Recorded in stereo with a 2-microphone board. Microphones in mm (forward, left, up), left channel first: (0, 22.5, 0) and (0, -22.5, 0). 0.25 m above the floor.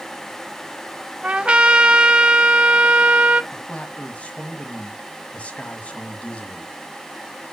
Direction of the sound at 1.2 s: 25° right (ahead or behind).